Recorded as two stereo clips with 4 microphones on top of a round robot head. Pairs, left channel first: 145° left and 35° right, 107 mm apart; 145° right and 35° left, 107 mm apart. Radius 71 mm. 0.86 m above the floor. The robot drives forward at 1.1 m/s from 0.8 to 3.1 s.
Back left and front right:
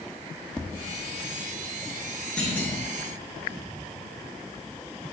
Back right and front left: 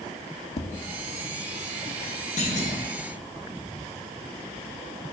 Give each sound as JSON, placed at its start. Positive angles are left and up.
{"t": 0.6, "sound": "tapping", "azimuth_deg": -130, "distance_m": 0.6}
{"t": 2.4, "sound": "a clunk", "azimuth_deg": -135, "distance_m": 1.6}